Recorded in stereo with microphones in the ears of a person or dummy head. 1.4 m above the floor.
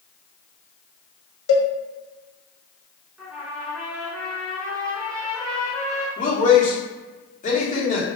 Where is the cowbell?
75° left (ahead or behind), 0.8 m.